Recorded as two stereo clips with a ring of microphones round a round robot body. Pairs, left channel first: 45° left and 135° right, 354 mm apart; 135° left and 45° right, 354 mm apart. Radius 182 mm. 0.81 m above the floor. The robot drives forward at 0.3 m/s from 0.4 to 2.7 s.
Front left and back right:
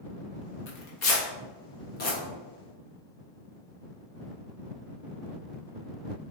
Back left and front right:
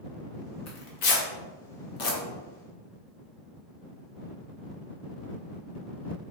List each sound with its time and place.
0.7 s tearing paper: 85° left, 1.0 m; by 2.2 s 115° left, 1.0 m